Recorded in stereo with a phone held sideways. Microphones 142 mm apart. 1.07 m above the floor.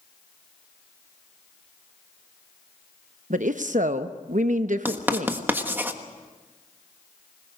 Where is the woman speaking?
65° right (ahead or behind), 0.8 m.